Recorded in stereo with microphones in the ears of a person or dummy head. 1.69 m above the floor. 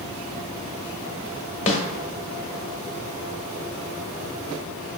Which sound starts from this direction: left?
A snare drum, at 1.7 s.